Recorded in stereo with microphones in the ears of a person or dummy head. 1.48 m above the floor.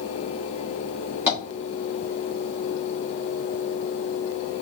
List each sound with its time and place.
1.3 s tapping: 15° right (ahead or behind), 2.0 m